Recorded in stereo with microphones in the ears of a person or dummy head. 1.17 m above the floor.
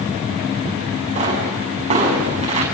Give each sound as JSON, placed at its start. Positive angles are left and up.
{"t": 1.1, "sound": "a pop", "side_deg": -35, "distance_m": 6.5}